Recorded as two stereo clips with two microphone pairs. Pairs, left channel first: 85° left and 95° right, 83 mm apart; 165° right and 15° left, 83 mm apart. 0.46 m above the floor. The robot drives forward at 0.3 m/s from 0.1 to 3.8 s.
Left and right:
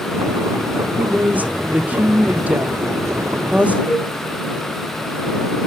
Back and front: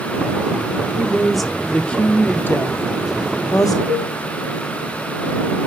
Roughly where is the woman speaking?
Ahead right.